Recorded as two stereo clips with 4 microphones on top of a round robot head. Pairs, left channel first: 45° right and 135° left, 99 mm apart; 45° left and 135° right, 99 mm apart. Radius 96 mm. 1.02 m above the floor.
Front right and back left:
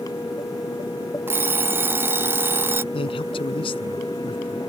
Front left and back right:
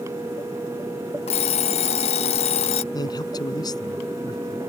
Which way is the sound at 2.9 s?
10° right.